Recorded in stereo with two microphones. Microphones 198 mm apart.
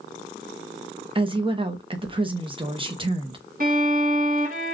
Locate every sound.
1.1 s a woman speaking: 25° right (ahead or behind), 0.8 m
3.6 s a violin: 45° right (ahead or behind), 1.7 m